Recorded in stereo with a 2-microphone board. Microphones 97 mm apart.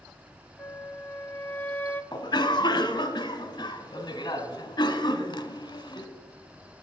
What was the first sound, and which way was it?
A flute, 20° left (ahead or behind).